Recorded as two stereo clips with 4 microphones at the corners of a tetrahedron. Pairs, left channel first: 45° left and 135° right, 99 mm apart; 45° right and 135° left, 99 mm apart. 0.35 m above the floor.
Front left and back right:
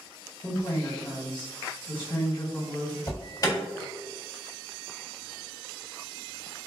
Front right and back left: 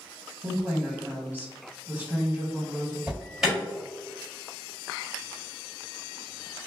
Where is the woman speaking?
65° left, 1.9 m.